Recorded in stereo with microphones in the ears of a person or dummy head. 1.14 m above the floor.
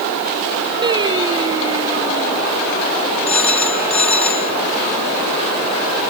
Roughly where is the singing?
Right.